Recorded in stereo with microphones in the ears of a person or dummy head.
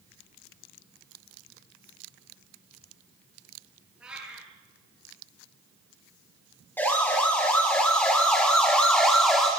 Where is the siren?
15° left (ahead or behind), 7 m; by 9.5 s 5° left (ahead or behind), 4.5 m.